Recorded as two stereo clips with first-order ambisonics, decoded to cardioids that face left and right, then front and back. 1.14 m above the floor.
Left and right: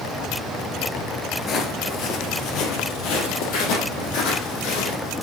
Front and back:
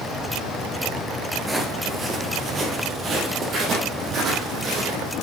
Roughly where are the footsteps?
Left.